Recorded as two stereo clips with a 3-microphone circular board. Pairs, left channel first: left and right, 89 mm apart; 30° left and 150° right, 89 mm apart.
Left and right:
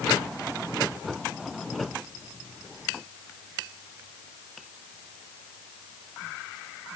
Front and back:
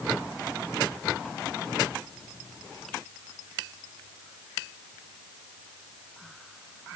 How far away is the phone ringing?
I don't hear a phone ringing.